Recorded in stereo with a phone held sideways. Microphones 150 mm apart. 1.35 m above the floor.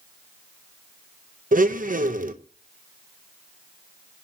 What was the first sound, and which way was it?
A blender, 65° right (ahead or behind).